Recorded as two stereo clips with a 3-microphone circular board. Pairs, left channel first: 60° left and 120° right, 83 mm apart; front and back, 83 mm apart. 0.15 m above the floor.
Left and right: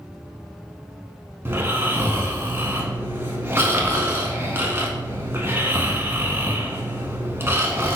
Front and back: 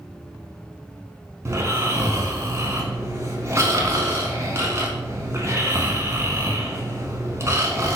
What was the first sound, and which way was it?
Snoring, 155° right.